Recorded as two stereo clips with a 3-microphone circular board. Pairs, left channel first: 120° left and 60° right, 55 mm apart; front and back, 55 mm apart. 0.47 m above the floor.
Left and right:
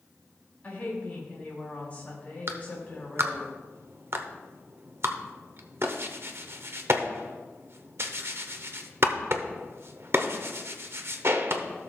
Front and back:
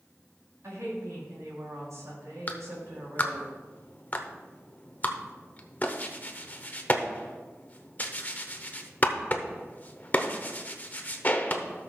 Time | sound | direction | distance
0.6 | a woman speaking | straight behind | 4 m
2.5 | a clap | 50° right | 0.8 m